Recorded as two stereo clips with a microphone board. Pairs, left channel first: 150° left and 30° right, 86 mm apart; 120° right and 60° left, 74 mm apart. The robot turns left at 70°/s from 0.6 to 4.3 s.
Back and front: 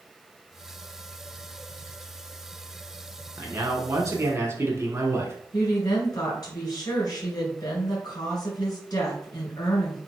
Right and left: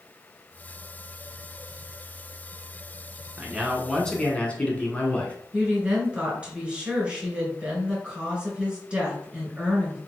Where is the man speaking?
Straight ahead, 1.3 m; by 5.3 s 65° right, 1.3 m.